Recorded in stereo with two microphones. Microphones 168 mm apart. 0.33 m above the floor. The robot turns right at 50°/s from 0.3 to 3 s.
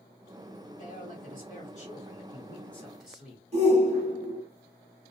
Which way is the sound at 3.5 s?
40° right (ahead or behind).